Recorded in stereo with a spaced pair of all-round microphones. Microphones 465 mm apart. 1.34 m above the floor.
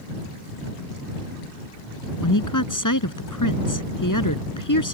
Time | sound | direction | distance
2.2 | a woman speaking | 40° left (ahead or behind) | ?